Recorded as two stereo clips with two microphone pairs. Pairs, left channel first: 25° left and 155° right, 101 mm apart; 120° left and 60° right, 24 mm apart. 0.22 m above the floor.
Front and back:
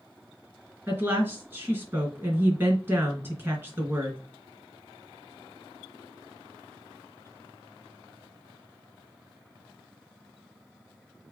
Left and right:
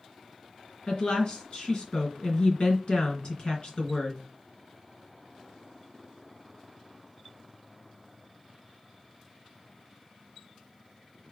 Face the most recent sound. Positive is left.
turn(degrees=150)